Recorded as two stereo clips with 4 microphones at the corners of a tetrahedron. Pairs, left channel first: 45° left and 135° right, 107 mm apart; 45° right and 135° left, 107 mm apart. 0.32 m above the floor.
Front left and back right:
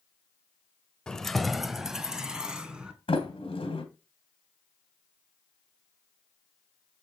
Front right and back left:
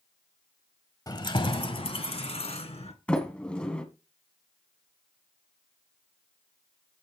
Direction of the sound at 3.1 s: 35° left.